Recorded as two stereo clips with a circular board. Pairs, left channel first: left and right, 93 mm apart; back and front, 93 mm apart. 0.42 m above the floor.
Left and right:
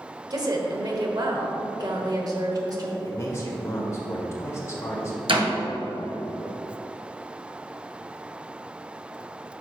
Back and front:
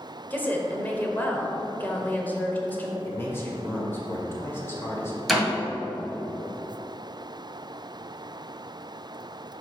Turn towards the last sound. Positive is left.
turn(degrees=-90)